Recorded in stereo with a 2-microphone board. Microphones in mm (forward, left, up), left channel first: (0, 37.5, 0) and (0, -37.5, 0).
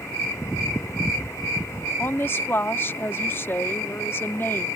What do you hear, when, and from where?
2.0 s a woman speaking: 30° left (ahead or behind)